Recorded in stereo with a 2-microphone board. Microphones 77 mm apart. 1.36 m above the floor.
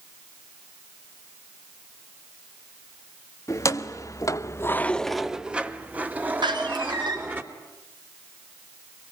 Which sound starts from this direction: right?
A door slam, at 6.4 s.